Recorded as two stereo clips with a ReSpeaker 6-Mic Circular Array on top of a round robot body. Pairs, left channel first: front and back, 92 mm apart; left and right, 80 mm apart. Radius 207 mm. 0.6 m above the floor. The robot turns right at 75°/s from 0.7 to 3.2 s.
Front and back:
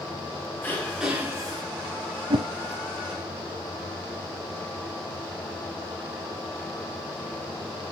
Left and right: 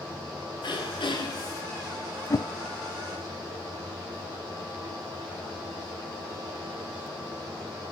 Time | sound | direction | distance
0.6 | throat clearing | 70° left | 4 m
2.3 | a whoosh | 140° left | 0.7 m